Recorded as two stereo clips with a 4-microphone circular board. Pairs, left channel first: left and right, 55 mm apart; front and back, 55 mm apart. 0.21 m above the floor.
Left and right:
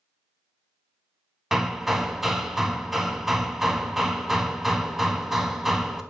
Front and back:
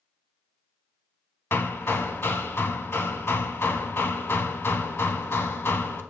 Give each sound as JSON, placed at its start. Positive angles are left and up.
{"t": 1.5, "sound": "hammering", "azimuth_deg": -5, "distance_m": 0.6}